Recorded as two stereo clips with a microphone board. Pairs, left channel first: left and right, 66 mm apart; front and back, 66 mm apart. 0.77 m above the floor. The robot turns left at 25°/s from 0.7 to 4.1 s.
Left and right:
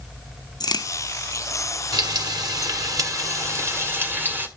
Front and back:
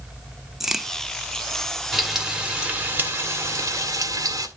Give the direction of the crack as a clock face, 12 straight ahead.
9 o'clock.